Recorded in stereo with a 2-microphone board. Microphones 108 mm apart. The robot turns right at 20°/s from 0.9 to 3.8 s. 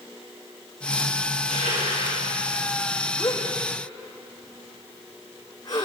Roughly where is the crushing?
Right.